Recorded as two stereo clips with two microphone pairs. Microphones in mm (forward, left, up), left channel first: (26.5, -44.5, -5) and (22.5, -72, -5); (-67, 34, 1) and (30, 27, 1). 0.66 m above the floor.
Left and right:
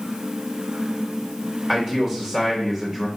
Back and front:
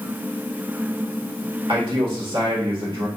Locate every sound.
1.7 s a man speaking: 15° right, 2.5 m